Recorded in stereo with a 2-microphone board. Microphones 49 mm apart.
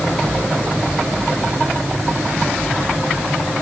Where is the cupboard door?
I don't hear a cupboard door.